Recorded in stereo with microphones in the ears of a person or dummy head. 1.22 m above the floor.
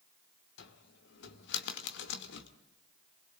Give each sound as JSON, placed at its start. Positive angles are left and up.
{"t": 0.6, "sound": "a cupboard door", "side_deg": 65, "distance_m": 2.0}